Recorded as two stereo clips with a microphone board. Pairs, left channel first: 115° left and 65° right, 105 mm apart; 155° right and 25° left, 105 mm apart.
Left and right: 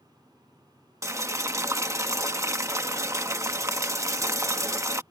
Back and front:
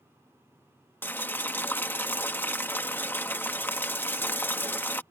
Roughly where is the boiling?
Right.